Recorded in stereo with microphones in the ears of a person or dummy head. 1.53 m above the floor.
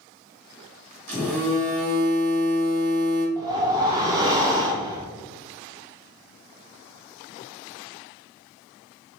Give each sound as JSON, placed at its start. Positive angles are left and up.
{"t": 1.1, "sound": "a phone buzzing", "side_deg": -55, "distance_m": 1.8}
{"t": 3.4, "sound": "a whoosh", "side_deg": -25, "distance_m": 0.7}